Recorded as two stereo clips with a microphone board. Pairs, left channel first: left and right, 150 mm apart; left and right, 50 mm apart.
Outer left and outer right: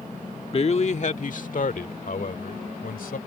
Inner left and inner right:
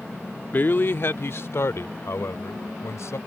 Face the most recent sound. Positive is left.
turn(degrees=75)  # may be behind; listen again after turning